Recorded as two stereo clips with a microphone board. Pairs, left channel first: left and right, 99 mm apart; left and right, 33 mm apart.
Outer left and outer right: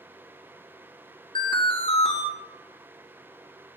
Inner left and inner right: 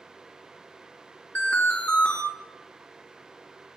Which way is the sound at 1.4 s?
55° left (ahead or behind).